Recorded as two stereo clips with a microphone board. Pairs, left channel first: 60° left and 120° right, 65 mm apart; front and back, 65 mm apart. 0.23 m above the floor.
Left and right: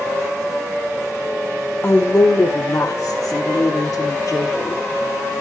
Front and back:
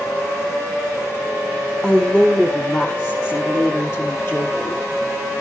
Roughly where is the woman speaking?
Left.